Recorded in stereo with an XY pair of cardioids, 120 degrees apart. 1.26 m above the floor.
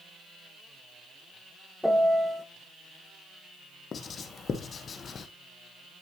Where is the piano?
5° left, 0.9 m.